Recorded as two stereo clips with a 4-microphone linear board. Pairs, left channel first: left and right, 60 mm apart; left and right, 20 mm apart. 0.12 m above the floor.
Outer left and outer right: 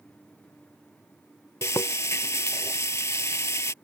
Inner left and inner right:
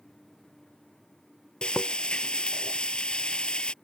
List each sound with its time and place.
1.6 s frying: 55° left (ahead or behind)